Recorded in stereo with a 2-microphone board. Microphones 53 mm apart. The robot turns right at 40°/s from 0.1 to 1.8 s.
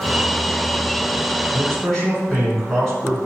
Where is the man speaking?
5° left (ahead or behind), 1.2 m; by 3.2 s 10° left (ahead or behind), 1.2 m.